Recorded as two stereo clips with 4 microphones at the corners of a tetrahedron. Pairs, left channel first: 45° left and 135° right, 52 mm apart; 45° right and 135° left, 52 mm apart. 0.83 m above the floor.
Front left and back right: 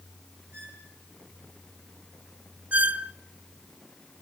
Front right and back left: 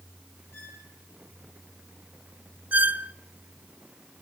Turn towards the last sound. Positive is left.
turn(degrees=180)